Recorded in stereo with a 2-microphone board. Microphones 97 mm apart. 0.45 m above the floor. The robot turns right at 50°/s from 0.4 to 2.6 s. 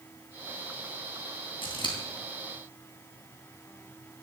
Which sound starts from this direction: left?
Scissors, at 1.6 s.